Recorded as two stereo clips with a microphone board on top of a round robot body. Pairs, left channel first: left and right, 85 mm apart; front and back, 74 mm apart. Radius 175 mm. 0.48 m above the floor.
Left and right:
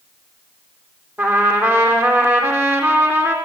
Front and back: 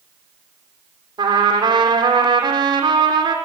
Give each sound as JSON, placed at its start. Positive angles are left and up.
{"t": 1.2, "sound": "a trumpet", "azimuth_deg": -155, "distance_m": 4.5}